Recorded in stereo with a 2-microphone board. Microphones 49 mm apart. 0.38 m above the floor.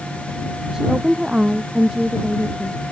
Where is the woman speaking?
15° right (ahead or behind).